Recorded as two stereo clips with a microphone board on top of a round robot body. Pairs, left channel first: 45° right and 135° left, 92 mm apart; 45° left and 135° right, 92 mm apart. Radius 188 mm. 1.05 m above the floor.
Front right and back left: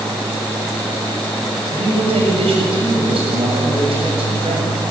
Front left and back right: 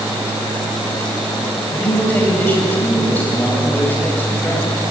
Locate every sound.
1.7 s a man speaking: 115° left, 7.5 m